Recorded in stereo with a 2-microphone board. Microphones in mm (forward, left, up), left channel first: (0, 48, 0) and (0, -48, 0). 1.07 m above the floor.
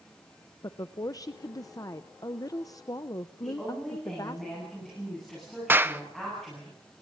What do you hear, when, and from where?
0.6 s a woman speaking: 40° left (ahead or behind), 0.6 m
3.4 s a woman speaking: 5° left (ahead or behind), 9.5 m
5.7 s a clap: 20° right (ahead or behind), 0.7 m